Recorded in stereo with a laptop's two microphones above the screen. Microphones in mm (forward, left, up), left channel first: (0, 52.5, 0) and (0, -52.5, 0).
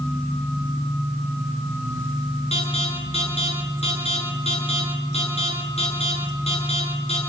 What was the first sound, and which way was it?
An alarm, 80° left.